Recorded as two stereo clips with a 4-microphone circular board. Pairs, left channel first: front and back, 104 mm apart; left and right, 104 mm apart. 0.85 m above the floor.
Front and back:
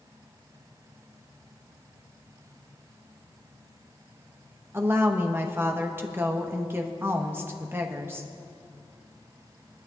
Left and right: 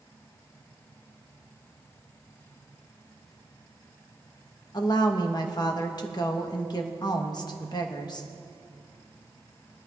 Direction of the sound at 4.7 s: 120° left.